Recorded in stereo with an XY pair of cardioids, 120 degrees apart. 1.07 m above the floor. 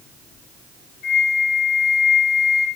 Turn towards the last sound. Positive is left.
turn(degrees=70)